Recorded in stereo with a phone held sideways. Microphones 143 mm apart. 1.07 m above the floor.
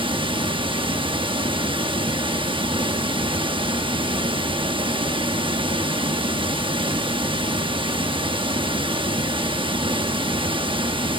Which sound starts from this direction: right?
Running water, at 0.0 s.